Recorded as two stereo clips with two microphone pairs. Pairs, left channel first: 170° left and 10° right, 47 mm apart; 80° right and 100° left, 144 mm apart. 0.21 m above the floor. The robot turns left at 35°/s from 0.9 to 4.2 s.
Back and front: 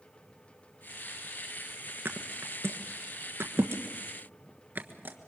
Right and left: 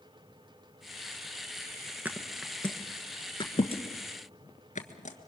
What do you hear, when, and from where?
2.0 s a thud: 25° left, 1.4 m; by 5.2 s 50° right, 1.4 m